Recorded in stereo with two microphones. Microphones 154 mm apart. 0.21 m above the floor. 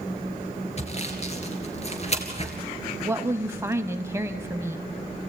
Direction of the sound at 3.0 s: 15° right (ahead or behind).